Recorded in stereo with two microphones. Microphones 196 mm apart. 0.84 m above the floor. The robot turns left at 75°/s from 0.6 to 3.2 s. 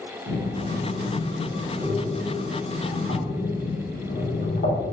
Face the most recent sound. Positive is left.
turn(degrees=70)  # may be behind; listen again after turning